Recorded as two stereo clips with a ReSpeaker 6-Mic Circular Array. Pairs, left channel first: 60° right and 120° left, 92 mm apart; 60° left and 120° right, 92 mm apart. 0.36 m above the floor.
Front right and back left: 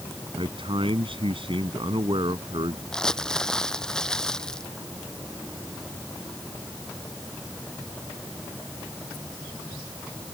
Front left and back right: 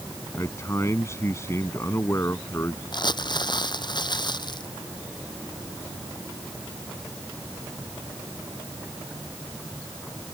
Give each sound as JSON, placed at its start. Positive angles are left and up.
{"t": 0.4, "sound": "a man speaking", "azimuth_deg": 115}
{"t": 2.9, "sound": "crumpling", "azimuth_deg": 25}